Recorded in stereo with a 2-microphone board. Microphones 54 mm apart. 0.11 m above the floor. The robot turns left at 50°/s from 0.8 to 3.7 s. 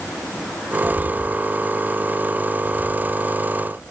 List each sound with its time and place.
0.8 s footsteps: 45° left (ahead or behind); by 3.4 s 60° right (ahead or behind)